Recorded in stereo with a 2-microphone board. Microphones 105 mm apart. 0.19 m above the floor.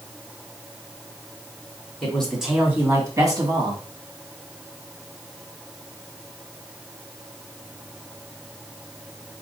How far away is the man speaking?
About 1.4 m.